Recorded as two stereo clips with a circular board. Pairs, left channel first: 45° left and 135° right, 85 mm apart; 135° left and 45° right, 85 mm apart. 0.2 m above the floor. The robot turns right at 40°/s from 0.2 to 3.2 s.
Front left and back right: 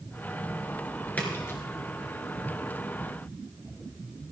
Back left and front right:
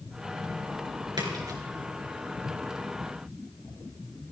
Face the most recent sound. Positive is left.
turn(degrees=55)